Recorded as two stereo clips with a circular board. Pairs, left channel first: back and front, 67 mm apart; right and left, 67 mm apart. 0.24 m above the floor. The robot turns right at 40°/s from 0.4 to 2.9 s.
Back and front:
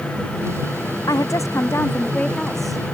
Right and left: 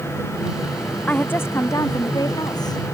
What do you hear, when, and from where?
1.1 s a woman speaking: 155° right; by 2.8 s 85° right